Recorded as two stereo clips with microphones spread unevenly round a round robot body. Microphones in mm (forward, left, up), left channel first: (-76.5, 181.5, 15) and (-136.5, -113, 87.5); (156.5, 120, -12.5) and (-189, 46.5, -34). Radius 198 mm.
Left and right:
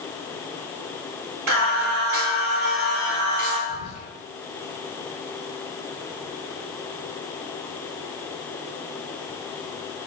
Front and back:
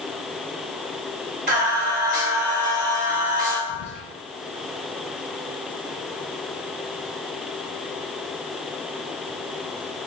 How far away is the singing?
About 1.4 m.